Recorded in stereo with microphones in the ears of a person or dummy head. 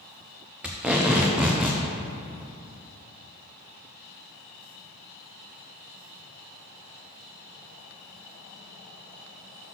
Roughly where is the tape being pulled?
Centre.